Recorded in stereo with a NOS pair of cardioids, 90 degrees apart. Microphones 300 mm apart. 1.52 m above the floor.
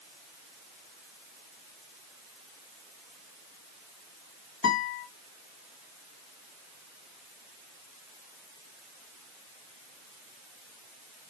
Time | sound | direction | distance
4.6 | a guitar | 45° left | 1.9 m